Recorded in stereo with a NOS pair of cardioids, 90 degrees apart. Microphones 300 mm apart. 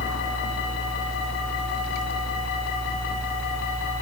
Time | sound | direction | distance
0.0 | a fan | 25° right | ?